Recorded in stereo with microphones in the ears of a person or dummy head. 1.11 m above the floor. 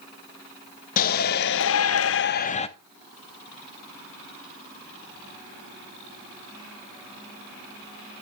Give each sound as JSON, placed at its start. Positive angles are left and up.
{"t": 1.0, "sound": "a shout", "side_deg": 45, "distance_m": 1.0}